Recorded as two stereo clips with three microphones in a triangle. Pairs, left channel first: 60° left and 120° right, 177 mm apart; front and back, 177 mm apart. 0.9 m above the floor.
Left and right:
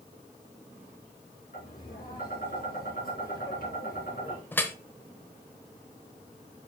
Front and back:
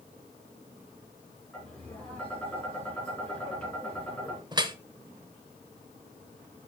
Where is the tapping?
80° left, 3.5 m.